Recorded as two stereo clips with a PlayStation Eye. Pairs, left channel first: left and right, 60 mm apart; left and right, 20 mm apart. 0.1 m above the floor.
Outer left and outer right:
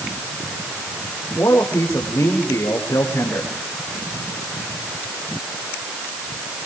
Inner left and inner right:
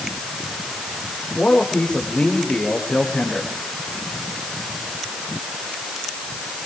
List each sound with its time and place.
1.4 s a man speaking: 75° left (ahead or behind), 8.5 m